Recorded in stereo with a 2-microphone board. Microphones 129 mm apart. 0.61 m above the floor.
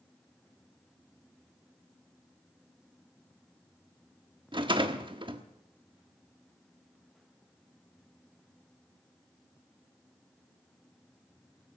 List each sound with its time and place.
4.5 s a rattle: 40° right (ahead or behind), 1.2 m